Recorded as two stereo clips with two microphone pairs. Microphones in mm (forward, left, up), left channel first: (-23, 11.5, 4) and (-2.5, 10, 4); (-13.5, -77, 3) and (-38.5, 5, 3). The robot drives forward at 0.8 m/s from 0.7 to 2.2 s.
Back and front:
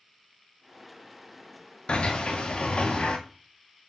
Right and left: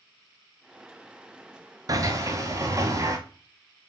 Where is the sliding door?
155° left, 0.7 m; by 3.2 s 160° left, 0.9 m.